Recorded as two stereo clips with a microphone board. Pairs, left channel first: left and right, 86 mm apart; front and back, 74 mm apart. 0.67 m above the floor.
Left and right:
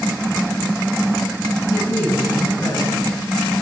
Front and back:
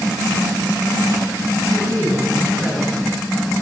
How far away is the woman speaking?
About 5.5 m.